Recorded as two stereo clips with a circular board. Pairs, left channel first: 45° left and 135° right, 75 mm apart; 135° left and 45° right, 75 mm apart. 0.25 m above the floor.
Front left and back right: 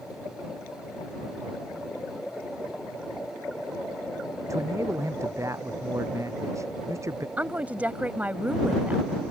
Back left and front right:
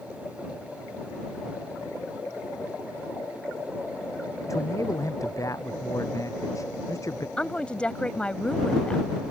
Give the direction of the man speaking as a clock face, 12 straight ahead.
6 o'clock.